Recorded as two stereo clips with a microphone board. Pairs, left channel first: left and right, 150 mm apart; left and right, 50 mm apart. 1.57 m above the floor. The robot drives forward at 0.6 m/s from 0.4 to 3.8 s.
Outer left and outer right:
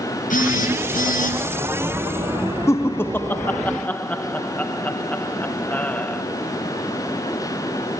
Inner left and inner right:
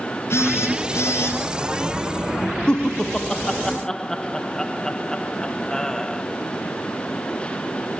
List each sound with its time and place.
0.3 s a phone buzzing: 60° left (ahead or behind), 9.5 m; by 1.4 s 65° left (ahead or behind), 9 m
2.7 s laughter: 20° left (ahead or behind), 0.9 m; by 6.2 s 10° left (ahead or behind), 1.5 m